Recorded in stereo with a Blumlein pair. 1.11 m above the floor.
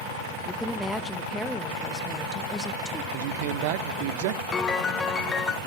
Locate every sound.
0.5 s a woman speaking: straight ahead, 1.0 m
3.1 s a man speaking: 50° right, 0.8 m
4.5 s a piano: 15° left, 0.7 m